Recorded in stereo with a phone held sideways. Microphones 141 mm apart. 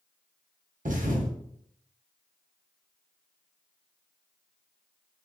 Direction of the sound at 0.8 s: 65° right (ahead or behind).